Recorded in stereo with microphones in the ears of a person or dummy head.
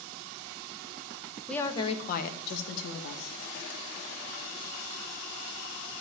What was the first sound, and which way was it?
A woman speaking, 5° left (ahead or behind).